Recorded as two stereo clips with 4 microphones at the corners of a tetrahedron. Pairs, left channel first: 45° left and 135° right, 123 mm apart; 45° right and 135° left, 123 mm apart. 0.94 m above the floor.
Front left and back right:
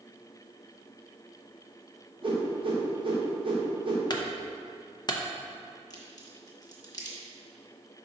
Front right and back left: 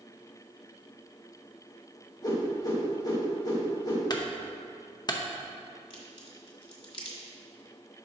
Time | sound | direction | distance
2.2 | a whoosh | 95° right | 1.2 m
4.1 | a clunk | straight ahead | 0.6 m
5.9 | a crack | 10° right | 1.5 m